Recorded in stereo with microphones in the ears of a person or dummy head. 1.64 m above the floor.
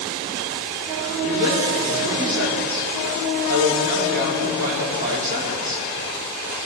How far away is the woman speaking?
About 4.5 m.